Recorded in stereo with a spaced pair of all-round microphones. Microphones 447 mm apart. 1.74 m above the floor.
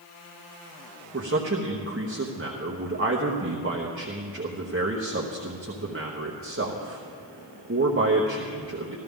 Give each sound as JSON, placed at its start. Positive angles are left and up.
{"t": 1.1, "sound": "a man speaking", "side_deg": -30, "distance_m": 0.9}